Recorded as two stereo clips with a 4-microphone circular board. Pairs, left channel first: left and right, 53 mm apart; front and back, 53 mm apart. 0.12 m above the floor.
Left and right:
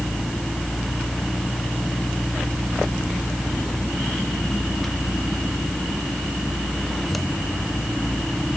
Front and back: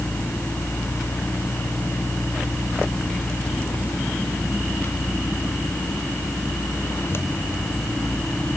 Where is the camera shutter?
I don't hear a camera shutter.